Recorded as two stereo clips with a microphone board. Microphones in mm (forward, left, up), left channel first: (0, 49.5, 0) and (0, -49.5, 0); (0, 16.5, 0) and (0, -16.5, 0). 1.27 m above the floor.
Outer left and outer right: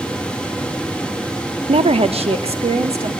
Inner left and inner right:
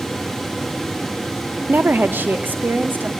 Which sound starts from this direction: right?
A woman speaking, at 1.7 s.